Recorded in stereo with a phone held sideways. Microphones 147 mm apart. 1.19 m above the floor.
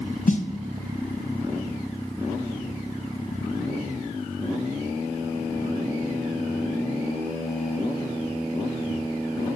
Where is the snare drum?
60° left (ahead or behind), 0.5 m.